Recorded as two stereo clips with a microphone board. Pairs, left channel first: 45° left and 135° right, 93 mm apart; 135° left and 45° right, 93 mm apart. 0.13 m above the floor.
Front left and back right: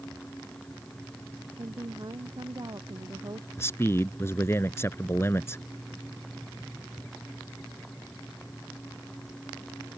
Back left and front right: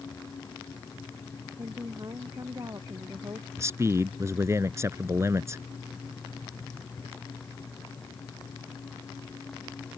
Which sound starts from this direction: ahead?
A man speaking, at 3.6 s.